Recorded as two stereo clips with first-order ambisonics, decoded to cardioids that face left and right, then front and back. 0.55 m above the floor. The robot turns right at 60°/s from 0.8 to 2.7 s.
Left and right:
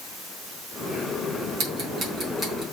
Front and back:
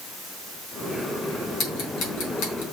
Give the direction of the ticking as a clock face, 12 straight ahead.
2 o'clock.